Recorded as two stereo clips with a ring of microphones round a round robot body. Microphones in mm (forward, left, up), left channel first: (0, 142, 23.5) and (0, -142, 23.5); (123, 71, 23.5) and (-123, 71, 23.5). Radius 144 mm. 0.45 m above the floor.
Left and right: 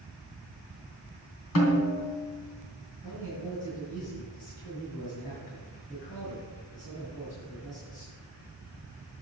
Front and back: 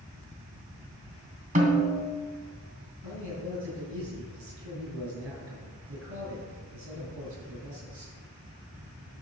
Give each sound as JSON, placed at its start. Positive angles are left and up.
{"t": 1.6, "sound": "a snare drum", "azimuth_deg": 125, "distance_m": 3.0}
{"t": 3.0, "sound": "a man speaking", "azimuth_deg": 155, "distance_m": 5.5}